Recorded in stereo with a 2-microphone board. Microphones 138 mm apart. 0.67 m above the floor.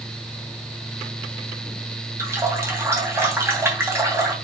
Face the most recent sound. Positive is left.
turn(degrees=-20)  # may be behind; listen again after turning